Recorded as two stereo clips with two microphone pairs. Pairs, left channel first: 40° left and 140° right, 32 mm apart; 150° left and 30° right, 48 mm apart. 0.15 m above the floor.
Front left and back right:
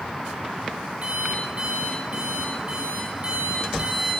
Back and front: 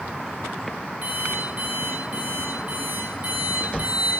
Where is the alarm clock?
90° right, 8 m.